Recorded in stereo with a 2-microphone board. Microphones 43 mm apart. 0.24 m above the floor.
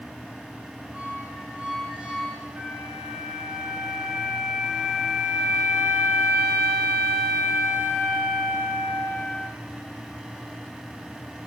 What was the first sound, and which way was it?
A squeak, 25° right (ahead or behind).